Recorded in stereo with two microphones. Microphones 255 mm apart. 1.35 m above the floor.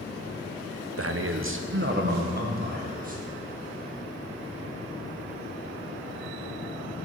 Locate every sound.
1.0 s a man speaking: 60° right (ahead or behind), 0.6 m; by 3.2 s 30° right (ahead or behind), 1.5 m